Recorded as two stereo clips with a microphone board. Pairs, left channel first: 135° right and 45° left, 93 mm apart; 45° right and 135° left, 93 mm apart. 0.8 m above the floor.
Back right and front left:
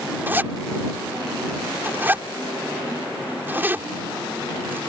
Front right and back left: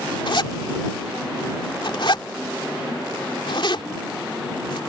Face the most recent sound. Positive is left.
turn(degrees=-20)